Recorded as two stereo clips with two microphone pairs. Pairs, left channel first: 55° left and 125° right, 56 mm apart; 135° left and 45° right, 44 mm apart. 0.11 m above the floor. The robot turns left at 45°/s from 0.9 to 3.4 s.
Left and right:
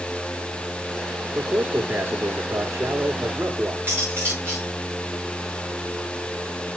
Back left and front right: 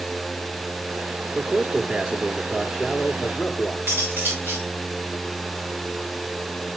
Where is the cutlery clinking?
70° right, 6.5 m.